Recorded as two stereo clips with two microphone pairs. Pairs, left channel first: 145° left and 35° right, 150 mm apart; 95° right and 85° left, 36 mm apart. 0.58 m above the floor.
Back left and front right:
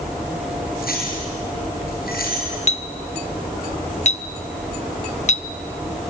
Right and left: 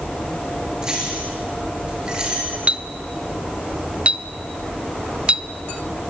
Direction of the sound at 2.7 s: 130° left.